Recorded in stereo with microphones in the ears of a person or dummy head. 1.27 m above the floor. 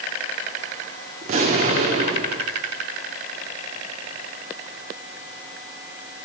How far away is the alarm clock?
I don't hear an alarm clock.